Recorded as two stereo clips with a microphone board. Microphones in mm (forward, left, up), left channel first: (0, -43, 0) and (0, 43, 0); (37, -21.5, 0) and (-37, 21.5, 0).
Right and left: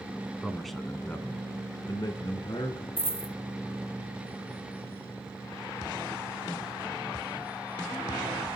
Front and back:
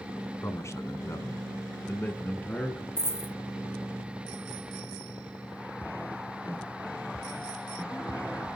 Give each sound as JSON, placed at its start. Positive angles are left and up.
{"t": 0.4, "sound": "a man speaking", "azimuth_deg": 10, "distance_m": 1.3}
{"t": 3.0, "sound": "a dropped coin", "azimuth_deg": -95, "distance_m": 0.8}